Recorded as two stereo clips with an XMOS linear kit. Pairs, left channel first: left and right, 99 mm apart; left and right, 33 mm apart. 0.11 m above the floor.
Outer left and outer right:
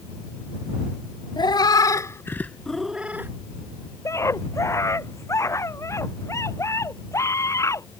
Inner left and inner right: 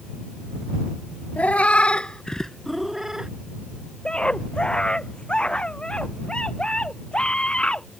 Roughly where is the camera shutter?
No camera shutter in this recording.